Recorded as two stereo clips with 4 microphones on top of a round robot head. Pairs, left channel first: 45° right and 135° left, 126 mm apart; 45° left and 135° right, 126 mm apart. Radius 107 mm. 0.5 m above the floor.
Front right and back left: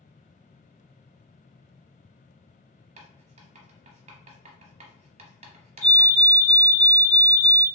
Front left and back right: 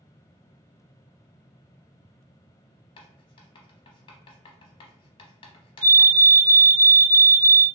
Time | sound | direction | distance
3.0 | writing | 100° left | 0.6 m
5.8 | a fire alarm | 100° right | 1.9 m